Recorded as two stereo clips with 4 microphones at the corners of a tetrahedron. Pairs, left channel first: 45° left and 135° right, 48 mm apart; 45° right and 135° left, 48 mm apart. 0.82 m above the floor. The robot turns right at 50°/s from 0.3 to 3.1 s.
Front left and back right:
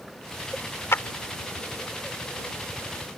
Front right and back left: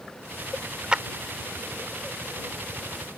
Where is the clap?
65° left; by 1.0 s 70° left.